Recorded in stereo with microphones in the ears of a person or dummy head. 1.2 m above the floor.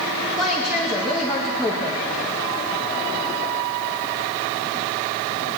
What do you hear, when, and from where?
0.4 s a woman speaking: 5° right (ahead or behind), 1.8 m